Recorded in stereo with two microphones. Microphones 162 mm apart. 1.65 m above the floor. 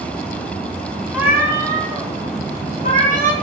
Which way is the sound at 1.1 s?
10° right (ahead or behind).